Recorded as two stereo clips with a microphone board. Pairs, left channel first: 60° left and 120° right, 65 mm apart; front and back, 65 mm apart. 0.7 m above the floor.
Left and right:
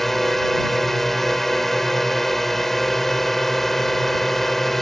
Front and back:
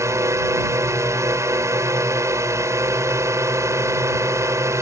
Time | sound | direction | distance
0.0 | a drone | 145° left | ?